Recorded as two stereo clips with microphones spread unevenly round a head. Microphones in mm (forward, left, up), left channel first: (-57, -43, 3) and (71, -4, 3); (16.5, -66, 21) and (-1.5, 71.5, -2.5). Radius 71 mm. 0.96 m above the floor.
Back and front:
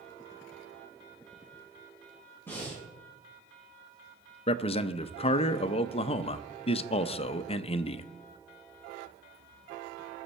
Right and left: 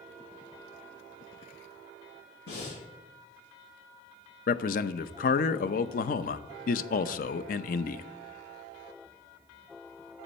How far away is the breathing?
About 6.5 m.